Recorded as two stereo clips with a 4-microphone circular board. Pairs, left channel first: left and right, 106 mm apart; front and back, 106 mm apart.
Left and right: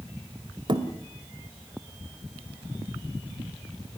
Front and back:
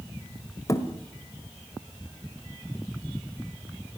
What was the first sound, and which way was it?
A thud, 55° right.